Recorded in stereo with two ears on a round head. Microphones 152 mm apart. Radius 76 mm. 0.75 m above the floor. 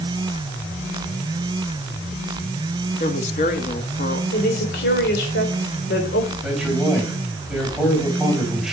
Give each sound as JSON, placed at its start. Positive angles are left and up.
{"t": 3.0, "sound": "a woman speaking", "side_deg": 45, "distance_m": 1.6}
{"t": 4.3, "sound": "a woman speaking", "side_deg": 65, "distance_m": 3.5}
{"t": 6.4, "sound": "a man speaking", "side_deg": -5, "distance_m": 4.5}